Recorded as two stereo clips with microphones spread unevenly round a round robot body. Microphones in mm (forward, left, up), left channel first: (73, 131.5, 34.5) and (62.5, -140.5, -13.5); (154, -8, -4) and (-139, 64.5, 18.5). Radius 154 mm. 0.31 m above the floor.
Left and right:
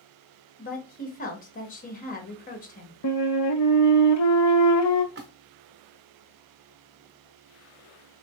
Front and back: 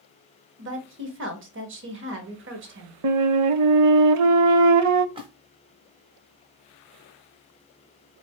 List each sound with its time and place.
0.6 s a woman speaking: 145° left, 1.2 m
3.0 s a flute: 130° left, 0.5 m
5.2 s a splash: 120° right, 1.0 m